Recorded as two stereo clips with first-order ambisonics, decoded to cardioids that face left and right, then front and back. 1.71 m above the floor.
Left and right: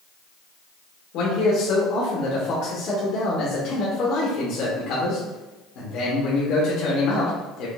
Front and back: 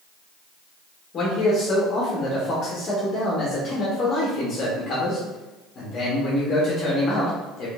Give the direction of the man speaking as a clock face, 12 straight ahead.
10 o'clock.